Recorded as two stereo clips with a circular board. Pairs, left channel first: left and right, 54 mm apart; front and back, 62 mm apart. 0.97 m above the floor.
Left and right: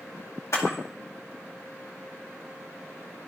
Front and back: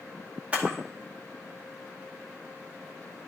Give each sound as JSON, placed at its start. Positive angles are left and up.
{"t": 0.5, "sound": "a camera shutter", "azimuth_deg": 110, "distance_m": 2.0}